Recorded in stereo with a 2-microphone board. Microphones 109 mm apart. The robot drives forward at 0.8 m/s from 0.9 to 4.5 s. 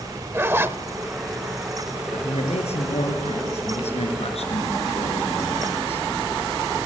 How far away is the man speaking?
About 4.5 m.